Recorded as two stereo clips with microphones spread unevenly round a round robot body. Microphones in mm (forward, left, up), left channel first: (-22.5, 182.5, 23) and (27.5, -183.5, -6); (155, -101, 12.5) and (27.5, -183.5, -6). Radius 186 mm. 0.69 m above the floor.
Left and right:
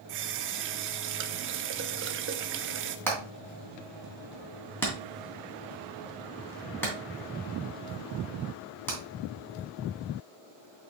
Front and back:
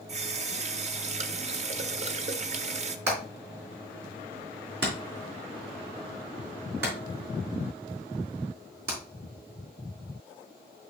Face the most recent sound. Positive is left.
turn(degrees=180)